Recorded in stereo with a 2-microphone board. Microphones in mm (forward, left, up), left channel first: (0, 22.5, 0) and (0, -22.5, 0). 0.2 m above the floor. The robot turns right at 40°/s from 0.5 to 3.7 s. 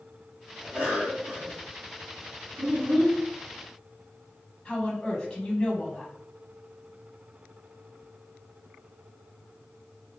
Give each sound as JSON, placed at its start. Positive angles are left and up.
{"t": 0.6, "sound": "a cough", "azimuth_deg": -155, "distance_m": 2.0}
{"t": 2.6, "sound": "a child speaking", "side_deg": -50, "distance_m": 1.9}
{"t": 4.7, "sound": "a woman speaking", "side_deg": 25, "distance_m": 1.0}